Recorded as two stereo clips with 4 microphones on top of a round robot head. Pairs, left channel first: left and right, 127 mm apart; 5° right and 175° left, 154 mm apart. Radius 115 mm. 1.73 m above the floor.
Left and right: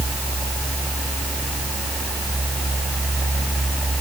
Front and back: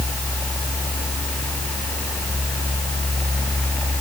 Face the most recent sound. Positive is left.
No sound to turn to.